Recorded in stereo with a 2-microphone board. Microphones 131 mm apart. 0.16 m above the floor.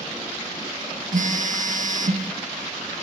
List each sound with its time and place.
1.1 s a phone buzzing: 65° right (ahead or behind), 2.0 m